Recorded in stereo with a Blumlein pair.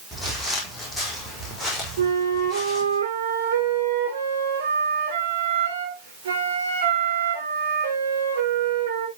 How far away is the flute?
About 3.5 m.